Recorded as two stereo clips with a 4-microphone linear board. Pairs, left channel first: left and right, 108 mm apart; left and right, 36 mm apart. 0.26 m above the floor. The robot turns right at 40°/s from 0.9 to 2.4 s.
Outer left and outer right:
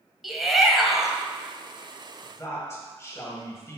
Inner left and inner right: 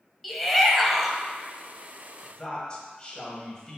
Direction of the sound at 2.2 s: 25° left (ahead or behind).